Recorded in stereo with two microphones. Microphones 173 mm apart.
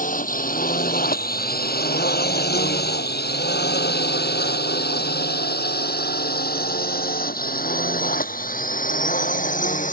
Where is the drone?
50° left (ahead or behind).